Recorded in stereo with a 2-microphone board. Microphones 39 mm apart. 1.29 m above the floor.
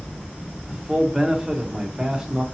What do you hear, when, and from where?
0.7 s a man speaking: 15° right (ahead or behind), 0.9 m